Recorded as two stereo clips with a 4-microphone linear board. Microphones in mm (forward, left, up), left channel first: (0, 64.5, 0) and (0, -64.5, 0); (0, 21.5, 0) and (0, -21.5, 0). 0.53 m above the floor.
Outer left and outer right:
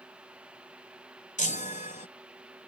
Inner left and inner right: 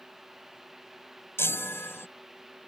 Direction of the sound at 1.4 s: 80° left.